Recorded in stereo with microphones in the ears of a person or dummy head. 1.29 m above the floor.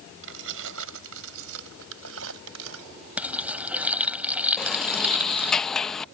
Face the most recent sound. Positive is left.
turn(degrees=5)  # may be behind; listen again after turning